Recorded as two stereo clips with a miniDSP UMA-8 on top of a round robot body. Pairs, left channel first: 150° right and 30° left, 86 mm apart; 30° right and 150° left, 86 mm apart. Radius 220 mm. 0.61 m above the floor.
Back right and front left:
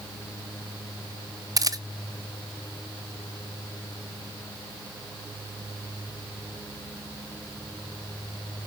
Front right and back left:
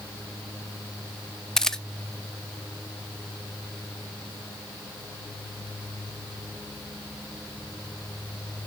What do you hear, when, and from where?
1.6 s a camera shutter: 50° left, 1.1 m